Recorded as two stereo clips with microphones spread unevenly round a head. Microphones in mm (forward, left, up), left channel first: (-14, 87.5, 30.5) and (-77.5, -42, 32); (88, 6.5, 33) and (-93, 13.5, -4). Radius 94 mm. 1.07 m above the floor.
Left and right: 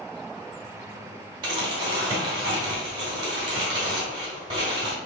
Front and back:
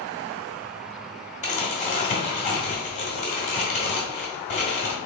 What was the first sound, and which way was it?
Crumpling, 50° right.